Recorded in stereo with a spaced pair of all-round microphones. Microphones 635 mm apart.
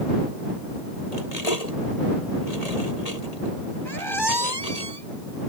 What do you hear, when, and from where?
1.1 s cutlery clinking: 75° left (ahead or behind)
3.9 s a squeak: 40° right (ahead or behind)